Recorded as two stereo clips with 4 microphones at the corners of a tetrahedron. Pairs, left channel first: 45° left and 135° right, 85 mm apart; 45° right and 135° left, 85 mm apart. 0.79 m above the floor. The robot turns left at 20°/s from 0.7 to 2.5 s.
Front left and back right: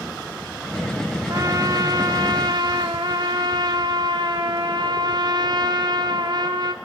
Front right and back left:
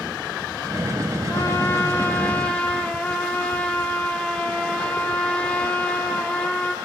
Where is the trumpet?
95° right, 2.0 m; by 6.7 s 120° right, 2.0 m.